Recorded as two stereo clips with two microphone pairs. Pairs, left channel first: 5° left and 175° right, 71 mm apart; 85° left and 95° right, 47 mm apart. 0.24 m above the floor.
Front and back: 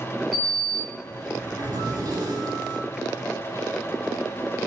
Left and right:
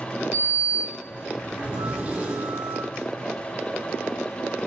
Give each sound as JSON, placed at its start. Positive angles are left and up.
{"t": 0.3, "sound": "a sliding door", "azimuth_deg": -155, "distance_m": 1.0}